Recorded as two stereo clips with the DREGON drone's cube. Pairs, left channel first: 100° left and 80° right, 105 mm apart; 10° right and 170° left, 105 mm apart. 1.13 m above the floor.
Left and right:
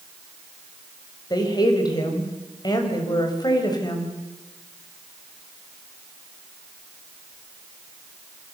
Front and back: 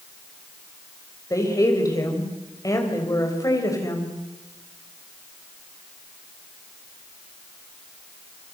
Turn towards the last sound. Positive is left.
turn(degrees=50)